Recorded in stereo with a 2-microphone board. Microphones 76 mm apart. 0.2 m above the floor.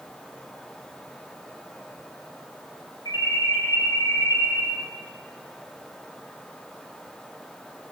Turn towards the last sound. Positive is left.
turn(degrees=65)  # may be behind; listen again after turning